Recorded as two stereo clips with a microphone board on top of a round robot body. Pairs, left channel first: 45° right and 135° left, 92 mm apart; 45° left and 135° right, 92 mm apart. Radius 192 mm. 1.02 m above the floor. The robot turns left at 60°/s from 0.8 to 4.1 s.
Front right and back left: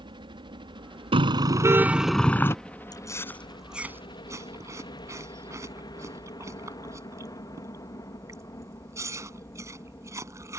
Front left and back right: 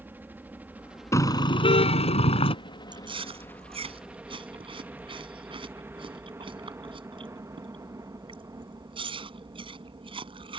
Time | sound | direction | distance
0.0 | a helicopter | 155° left | ?
1.1 | a car horn | 105° left | ?
2.9 | chewing | 95° right | ?